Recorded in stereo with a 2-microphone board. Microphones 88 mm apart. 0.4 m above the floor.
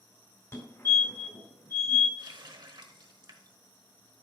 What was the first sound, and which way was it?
A fire alarm, 35° left (ahead or behind).